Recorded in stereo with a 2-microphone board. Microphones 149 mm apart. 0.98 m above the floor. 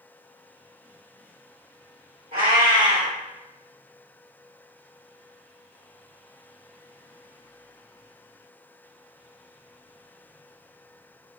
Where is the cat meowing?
70° right (ahead or behind), 1.6 m.